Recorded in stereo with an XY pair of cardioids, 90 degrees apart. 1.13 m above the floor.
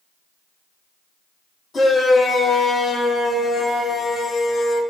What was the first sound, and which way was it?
A shout, 30° left.